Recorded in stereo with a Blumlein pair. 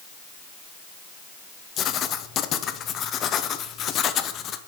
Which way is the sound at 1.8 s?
30° left.